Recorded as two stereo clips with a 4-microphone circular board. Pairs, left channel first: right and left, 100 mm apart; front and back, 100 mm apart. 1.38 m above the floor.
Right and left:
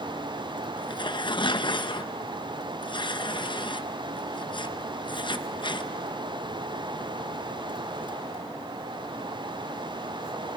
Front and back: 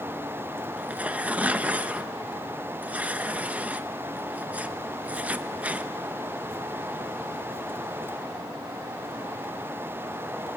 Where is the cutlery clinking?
No cutlery clinking in this recording.